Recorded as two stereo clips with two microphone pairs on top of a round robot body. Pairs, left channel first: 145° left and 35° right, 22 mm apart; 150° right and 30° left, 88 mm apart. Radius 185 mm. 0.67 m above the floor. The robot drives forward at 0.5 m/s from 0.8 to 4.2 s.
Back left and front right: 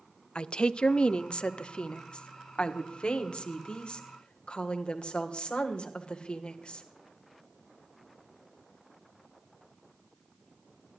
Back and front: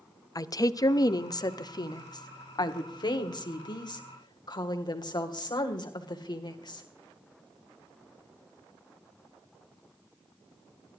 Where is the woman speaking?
170° left, 1.0 m; by 6.8 s 175° left, 2.5 m.